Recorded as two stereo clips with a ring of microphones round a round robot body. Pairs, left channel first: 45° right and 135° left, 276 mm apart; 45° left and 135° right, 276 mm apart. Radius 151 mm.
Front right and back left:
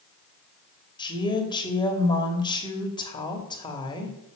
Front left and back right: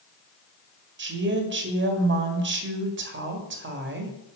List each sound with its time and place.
1.0 s a woman speaking: 115° right, 2.0 m